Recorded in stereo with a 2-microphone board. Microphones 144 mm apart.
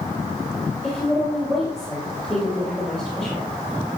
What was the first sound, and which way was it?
A woman speaking, 5° right (ahead or behind).